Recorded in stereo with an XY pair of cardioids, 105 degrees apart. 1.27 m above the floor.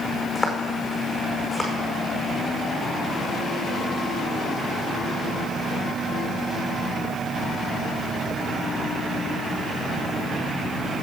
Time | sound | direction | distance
0.3 | footsteps | 10° left | 5 m